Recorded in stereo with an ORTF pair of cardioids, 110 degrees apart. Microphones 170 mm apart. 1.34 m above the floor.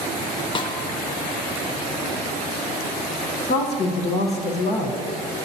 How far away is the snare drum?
About 0.9 m.